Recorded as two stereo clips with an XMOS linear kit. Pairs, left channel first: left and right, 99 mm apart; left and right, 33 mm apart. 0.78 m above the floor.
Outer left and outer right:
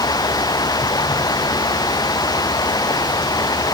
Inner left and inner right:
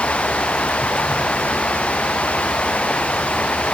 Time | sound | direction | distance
0.0 | running water | 40° left (ahead or behind) | ?